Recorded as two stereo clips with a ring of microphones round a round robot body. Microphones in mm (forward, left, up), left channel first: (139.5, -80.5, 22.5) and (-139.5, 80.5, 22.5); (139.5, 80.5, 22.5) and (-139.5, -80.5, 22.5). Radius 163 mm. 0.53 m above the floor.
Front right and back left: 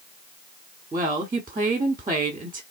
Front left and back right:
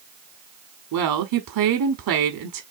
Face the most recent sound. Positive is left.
turn(degrees=-135)